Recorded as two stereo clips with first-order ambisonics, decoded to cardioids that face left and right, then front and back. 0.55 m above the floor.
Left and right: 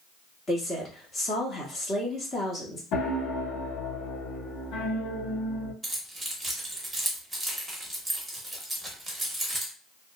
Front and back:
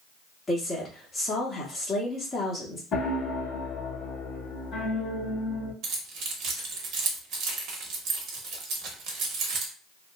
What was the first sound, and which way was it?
A woman speaking, 50° left.